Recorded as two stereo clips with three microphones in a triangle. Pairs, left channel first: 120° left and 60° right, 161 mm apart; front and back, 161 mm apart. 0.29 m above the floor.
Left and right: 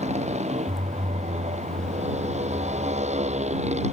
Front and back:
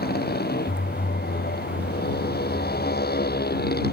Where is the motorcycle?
15° right.